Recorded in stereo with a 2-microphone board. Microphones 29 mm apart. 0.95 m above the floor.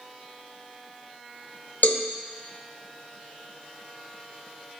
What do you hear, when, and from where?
1.8 s a cowbell: 75° left (ahead or behind), 0.6 m